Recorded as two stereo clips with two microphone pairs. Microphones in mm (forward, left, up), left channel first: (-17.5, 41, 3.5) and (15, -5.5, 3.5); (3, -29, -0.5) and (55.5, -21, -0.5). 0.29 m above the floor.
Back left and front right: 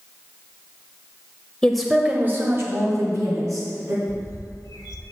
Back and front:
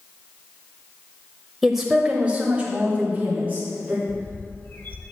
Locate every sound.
1.6 s a woman speaking: 85° left, 0.9 m; by 4.0 s 50° right, 2.5 m
4.1 s a bird: 135° left, 0.9 m